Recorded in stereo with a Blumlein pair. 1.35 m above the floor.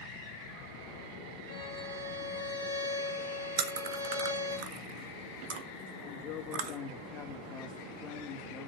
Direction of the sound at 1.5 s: 55° right.